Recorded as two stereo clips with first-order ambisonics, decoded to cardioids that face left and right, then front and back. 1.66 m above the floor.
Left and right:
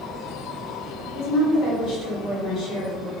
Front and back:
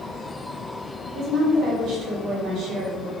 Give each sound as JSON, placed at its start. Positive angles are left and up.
{"t": 1.1, "sound": "a woman speaking", "azimuth_deg": 130, "distance_m": 1.7}